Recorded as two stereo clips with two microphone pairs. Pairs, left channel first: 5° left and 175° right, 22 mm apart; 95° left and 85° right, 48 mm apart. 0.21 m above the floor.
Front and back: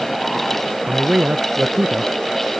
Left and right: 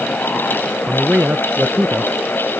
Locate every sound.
0.9 s a man speaking: 140° right; by 2.1 s 125° right